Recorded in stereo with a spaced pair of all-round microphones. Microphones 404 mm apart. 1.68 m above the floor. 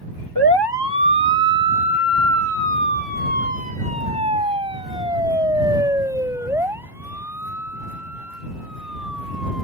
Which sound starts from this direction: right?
A siren, at 0.3 s.